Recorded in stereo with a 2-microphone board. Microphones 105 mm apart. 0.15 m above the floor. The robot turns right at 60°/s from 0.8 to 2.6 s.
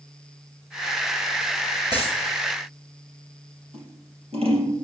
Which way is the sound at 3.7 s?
70° right (ahead or behind).